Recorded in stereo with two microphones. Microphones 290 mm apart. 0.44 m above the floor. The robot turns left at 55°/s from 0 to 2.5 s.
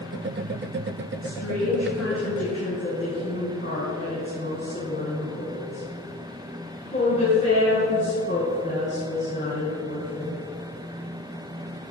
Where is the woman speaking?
60° left (ahead or behind), 5 m; by 10.4 s 40° left (ahead or behind), 5 m.